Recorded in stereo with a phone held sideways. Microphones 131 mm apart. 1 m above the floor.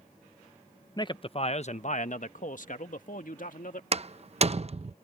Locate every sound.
1.0 s a man speaking: 30° left (ahead or behind); by 3.8 s 75° left (ahead or behind)
3.9 s a door slam: 50° right (ahead or behind)